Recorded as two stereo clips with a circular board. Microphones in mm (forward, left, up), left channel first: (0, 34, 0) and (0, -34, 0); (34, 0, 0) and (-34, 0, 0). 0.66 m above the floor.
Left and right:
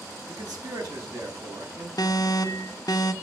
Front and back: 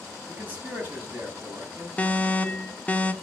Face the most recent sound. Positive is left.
turn(degrees=70)